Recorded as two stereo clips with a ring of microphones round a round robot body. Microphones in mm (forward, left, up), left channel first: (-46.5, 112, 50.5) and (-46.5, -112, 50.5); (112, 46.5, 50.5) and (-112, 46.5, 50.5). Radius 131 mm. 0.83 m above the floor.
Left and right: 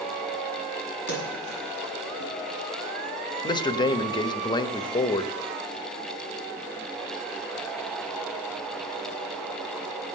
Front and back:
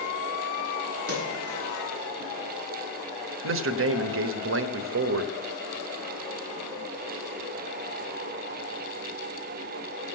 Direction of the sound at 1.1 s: 75° right.